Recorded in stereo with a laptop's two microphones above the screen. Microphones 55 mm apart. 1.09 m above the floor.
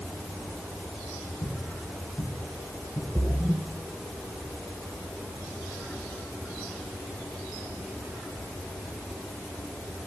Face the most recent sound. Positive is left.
turn(degrees=-50)  # may be behind; listen again after turning